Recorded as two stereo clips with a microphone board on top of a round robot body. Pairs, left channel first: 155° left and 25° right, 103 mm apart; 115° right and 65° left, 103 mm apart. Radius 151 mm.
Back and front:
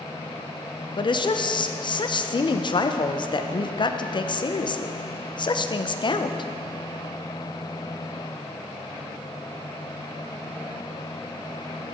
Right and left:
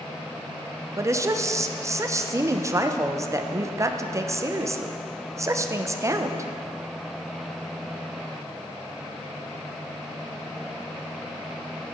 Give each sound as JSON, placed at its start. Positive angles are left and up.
{"t": 1.0, "sound": "a woman speaking", "azimuth_deg": 125, "distance_m": 0.8}